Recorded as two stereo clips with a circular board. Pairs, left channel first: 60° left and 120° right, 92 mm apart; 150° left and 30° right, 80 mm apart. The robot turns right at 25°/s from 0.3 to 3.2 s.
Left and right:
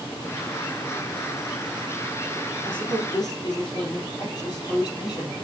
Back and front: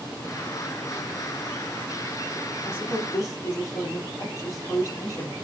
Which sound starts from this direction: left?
A woman speaking, at 2.6 s.